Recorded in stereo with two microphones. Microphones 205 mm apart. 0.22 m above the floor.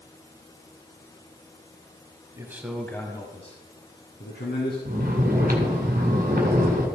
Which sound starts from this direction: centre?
A man speaking, at 2.4 s.